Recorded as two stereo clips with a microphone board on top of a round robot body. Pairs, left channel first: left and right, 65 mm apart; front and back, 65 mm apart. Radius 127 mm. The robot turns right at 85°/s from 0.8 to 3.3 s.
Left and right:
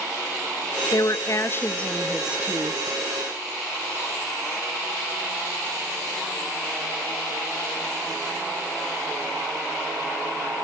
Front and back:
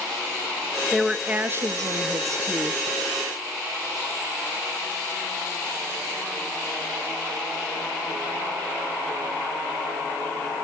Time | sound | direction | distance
0.9 | a woman speaking | 80° left | 1.0 m